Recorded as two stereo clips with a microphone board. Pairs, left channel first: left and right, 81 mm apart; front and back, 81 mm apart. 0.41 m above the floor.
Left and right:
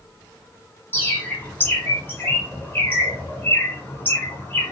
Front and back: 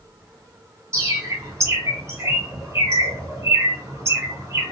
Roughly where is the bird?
Behind left.